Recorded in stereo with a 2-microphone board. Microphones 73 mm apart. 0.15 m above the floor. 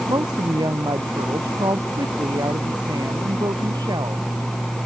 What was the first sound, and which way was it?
A woman speaking, 75° right (ahead or behind).